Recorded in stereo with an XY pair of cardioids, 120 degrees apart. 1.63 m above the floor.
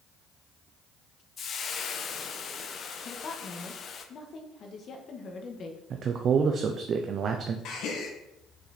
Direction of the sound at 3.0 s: 50° left.